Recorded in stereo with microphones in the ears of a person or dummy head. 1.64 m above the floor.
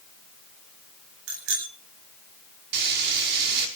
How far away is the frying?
About 5 m.